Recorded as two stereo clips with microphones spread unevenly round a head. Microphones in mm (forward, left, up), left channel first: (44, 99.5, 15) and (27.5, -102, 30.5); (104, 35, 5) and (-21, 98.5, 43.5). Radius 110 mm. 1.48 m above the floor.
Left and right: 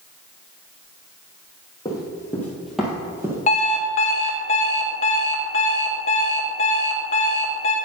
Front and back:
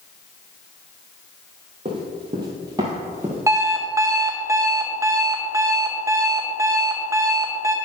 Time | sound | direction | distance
1.9 | running footsteps | 155° left | 2 m
3.5 | an alarm clock | 130° left | 0.8 m